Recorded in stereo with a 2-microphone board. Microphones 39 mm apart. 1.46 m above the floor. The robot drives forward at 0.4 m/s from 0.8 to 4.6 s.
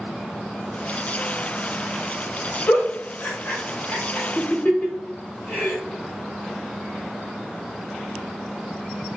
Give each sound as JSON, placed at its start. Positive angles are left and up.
{"t": 2.7, "sound": "a giggle", "side_deg": 45, "distance_m": 1.5}